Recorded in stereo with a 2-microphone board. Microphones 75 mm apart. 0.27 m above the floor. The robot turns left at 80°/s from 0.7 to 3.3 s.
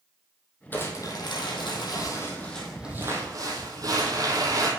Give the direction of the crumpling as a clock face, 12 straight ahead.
7 o'clock.